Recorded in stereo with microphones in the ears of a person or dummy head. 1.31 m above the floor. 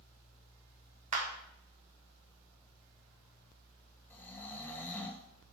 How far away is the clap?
About 1.3 m.